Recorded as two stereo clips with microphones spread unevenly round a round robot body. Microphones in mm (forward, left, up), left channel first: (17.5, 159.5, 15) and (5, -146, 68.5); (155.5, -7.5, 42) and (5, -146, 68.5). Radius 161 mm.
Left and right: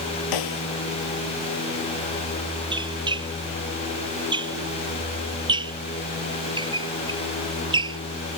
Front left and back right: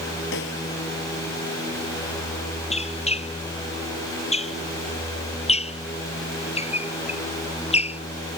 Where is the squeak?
15° right.